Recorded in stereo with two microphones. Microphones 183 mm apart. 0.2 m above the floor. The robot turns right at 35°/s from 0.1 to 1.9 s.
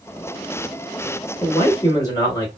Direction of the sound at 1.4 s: 30° left (ahead or behind).